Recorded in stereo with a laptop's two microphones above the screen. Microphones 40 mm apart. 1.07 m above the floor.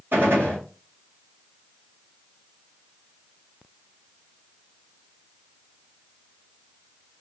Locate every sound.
0.1 s a gunshot: 65° right (ahead or behind), 2 m